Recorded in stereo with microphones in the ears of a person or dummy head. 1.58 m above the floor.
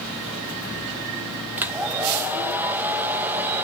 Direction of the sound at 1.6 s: 10° right (ahead or behind).